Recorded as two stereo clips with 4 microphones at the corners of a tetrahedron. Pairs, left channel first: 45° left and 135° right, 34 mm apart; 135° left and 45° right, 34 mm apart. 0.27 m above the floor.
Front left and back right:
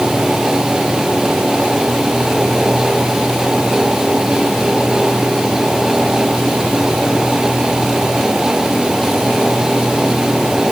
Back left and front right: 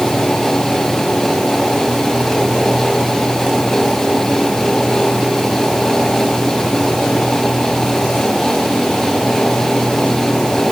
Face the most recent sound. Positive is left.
No sound to turn to.